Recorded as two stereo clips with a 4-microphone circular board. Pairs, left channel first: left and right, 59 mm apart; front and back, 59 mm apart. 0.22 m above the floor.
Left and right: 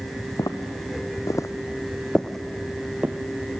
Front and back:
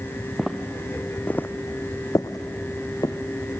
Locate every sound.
0.4 s footsteps: 90° left, 1.4 m; by 3.1 s 20° right, 1.3 m